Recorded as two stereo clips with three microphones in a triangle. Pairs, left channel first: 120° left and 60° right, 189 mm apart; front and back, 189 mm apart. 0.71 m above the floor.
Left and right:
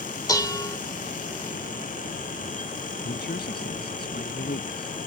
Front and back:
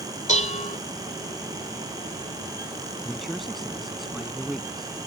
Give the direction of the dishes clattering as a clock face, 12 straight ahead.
10 o'clock.